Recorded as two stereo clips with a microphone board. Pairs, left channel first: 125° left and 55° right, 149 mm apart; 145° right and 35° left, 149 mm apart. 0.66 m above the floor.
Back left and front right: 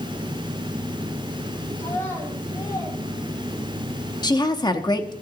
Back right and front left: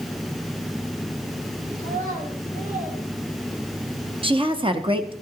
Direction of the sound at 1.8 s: 45° left.